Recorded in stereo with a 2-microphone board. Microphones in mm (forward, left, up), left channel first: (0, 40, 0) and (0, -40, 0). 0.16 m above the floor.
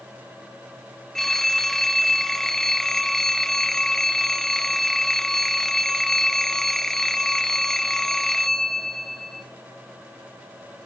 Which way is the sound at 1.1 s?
5° left (ahead or behind).